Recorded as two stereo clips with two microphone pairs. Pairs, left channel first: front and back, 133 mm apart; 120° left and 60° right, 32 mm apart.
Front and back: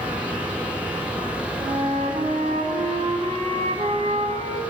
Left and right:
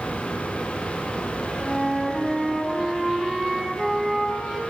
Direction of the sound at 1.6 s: 150° right.